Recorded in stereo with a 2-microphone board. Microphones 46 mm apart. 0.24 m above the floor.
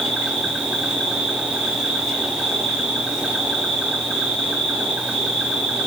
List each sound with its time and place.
0.0 s an insect: 10° right (ahead or behind), 4.5 m